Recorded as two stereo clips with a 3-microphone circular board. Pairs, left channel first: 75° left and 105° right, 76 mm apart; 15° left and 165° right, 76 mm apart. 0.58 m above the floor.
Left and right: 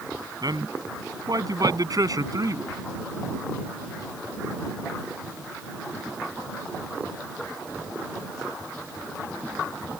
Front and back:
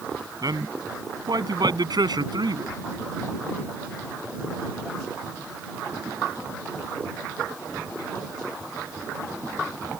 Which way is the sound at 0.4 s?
130° right.